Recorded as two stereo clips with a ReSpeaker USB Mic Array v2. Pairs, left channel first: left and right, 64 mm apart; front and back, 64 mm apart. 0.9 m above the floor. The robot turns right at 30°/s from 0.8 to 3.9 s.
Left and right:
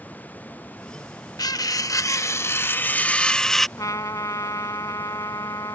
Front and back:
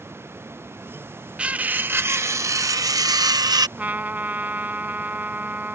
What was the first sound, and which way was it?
Cutlery clinking, 110° left.